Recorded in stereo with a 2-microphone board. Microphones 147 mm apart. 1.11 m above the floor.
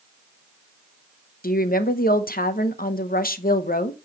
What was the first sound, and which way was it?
A woman speaking, 75° left (ahead or behind).